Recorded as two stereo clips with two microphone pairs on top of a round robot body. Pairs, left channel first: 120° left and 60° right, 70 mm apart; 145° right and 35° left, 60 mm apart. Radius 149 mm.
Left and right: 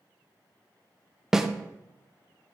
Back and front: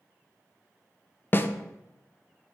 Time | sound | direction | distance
1.3 | a snare drum | 140° right | 0.5 m